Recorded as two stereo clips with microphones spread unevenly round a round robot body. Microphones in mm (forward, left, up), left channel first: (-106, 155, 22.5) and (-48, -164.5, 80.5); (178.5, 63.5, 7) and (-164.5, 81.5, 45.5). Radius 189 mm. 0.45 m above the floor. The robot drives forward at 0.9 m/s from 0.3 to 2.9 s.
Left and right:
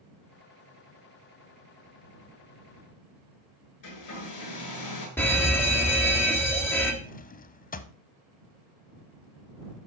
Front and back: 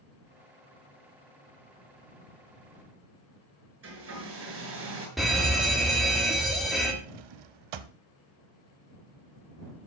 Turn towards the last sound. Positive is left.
turn(degrees=170)